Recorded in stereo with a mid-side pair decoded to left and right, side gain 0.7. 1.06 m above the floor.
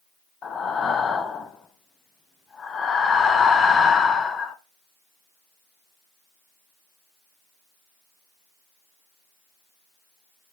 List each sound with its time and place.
0.4 s breathing: 30° left, 0.5 m